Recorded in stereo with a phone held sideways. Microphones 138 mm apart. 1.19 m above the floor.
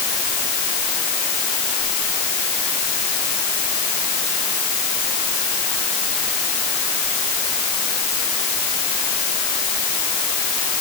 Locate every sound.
Only background noise.